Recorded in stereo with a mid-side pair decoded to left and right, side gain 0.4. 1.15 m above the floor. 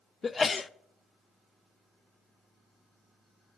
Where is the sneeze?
35° left, 0.5 m.